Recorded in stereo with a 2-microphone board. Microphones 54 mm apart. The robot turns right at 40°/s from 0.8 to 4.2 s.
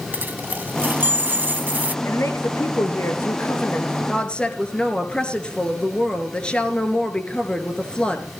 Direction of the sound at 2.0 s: 70° left.